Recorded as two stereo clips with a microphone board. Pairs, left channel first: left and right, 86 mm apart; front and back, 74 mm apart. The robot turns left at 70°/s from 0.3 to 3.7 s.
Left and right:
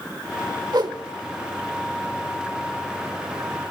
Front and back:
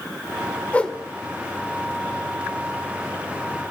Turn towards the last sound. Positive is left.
turn(degrees=85)